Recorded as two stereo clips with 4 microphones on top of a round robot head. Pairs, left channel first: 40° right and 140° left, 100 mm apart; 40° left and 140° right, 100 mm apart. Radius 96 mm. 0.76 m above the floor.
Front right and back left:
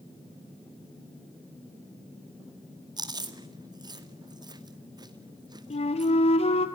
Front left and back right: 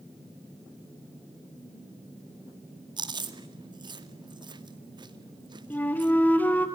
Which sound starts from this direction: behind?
Chewing, at 3.0 s.